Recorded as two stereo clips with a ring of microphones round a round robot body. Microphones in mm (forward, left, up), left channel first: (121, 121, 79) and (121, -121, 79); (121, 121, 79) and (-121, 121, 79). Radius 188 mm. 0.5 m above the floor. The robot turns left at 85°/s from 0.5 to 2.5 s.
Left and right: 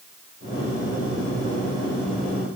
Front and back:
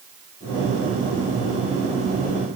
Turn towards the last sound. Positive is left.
No sound to turn to.